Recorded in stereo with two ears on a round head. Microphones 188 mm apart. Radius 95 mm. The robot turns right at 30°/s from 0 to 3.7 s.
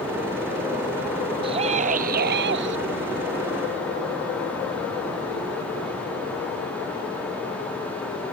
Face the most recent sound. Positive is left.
turn(degrees=-85)